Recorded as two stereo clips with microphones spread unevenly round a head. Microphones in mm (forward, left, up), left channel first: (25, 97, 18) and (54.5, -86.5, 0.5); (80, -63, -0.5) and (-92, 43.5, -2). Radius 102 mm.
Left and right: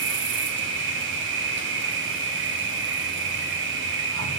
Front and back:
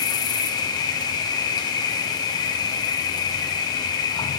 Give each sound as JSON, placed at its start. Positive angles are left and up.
{"t": 0.0, "sound": "an insect", "azimuth_deg": -105, "distance_m": 1.0}